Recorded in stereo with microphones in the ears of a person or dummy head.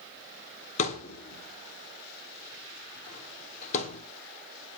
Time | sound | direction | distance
0.8 | a thud | 45° left (ahead or behind) | 1.4 m